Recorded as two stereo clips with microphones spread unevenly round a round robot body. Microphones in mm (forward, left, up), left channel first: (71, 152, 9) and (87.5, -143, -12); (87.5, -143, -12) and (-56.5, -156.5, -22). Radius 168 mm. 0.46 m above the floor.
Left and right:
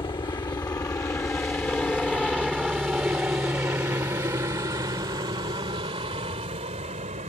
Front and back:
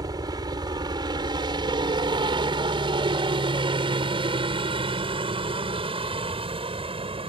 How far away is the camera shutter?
I don't hear a camera shutter.